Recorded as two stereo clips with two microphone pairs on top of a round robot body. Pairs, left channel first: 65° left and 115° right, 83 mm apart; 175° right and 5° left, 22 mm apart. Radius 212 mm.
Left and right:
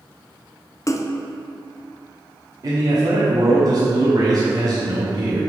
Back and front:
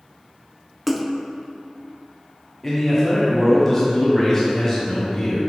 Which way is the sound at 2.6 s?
85° right.